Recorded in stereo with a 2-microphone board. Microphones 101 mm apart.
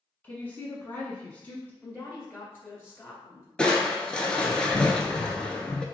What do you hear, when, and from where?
0.2 s a woman speaking: 20° left (ahead or behind), 1.1 m
1.8 s a woman speaking: 20° left (ahead or behind), 1.3 m
3.6 s crushing: 10° left (ahead or behind), 0.5 m